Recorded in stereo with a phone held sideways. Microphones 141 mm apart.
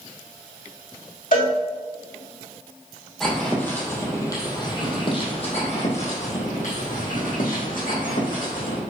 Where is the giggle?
I don't hear a giggle.